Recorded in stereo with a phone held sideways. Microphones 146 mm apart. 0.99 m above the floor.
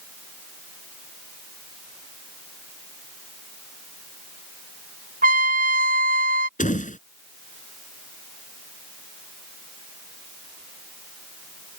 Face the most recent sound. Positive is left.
turn(degrees=60)  # may be behind; listen again after turning